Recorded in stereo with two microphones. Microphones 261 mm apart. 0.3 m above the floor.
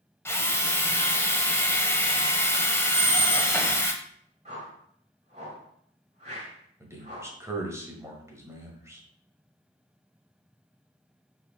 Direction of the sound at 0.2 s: 10° left (ahead or behind).